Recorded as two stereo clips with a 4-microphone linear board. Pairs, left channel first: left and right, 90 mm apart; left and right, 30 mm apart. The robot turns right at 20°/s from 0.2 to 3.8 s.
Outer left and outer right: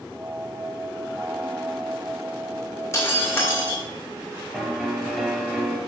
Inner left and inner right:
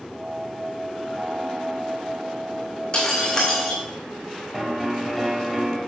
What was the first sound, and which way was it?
Breaking glass, 30° left (ahead or behind).